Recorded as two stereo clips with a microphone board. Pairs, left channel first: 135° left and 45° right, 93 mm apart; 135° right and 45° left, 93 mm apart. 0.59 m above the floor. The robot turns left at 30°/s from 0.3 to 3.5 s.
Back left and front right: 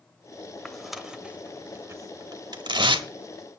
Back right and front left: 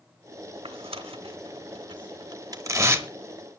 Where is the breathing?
I don't hear breathing.